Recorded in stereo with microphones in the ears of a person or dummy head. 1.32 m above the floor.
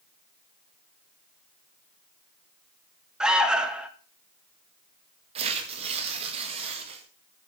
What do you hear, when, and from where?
3.2 s an alarm: 5° right (ahead or behind), 0.8 m
5.3 s tearing paper: 35° right (ahead or behind), 2.0 m